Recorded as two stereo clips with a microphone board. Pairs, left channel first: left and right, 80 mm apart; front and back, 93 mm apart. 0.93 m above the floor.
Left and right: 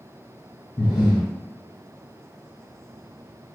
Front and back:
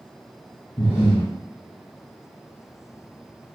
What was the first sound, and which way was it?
Breathing, 55° left.